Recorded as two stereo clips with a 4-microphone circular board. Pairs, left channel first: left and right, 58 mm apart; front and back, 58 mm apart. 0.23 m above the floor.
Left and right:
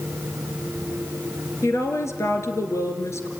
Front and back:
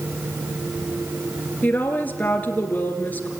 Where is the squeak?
I don't hear a squeak.